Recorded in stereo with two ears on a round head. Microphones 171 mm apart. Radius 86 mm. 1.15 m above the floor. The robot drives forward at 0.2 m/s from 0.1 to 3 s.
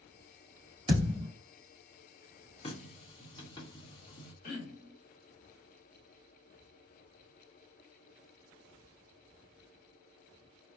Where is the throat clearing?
40° left (ahead or behind), 1.3 m.